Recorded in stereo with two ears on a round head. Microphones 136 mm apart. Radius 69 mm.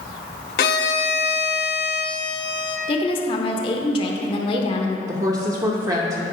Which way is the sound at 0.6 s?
65° left (ahead or behind).